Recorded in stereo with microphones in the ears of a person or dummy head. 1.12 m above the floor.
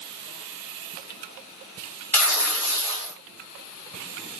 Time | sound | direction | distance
2.1 | tearing paper | 20° left (ahead or behind) | 1.9 m